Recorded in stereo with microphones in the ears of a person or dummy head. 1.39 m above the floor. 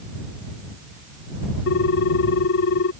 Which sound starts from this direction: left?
A ringtone, at 1.7 s.